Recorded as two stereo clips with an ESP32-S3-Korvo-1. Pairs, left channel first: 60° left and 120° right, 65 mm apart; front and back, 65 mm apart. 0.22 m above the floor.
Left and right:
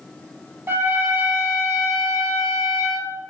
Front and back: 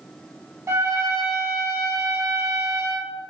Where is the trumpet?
160° right, 0.7 m.